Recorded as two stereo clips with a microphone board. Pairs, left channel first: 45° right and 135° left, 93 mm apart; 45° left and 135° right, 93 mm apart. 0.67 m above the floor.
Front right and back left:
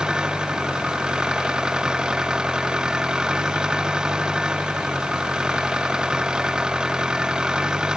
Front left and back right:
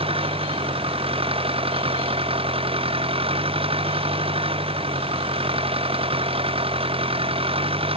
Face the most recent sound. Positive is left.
turn(degrees=-145)